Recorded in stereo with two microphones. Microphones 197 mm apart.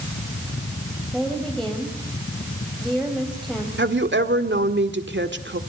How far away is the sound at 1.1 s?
About 3.5 m.